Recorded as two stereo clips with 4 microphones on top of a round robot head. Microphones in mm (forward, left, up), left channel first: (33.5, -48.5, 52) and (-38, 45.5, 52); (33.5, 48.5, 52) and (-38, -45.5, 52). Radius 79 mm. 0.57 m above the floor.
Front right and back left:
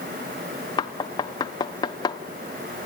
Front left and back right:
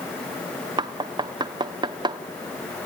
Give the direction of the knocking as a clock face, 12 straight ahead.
3 o'clock.